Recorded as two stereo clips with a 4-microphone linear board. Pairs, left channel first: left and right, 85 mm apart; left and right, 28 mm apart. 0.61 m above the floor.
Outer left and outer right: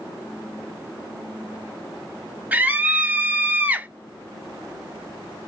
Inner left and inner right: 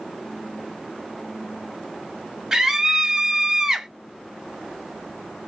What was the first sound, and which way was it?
A scream, 20° right (ahead or behind).